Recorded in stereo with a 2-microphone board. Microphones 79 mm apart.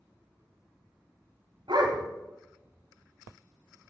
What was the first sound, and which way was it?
A dog barking, 65° right (ahead or behind).